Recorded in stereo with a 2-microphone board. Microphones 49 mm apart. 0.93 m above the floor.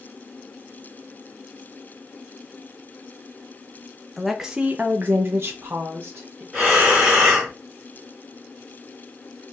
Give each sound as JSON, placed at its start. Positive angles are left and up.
{"t": 4.2, "sound": "a woman speaking", "side_deg": 0, "distance_m": 0.6}
{"t": 6.5, "sound": "breathing", "side_deg": -20, "distance_m": 1.5}